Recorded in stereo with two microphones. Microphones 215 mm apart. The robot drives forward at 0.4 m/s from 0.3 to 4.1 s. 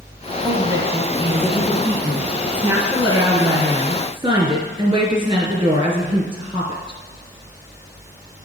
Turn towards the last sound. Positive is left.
turn(degrees=-25)  # may be behind; listen again after turning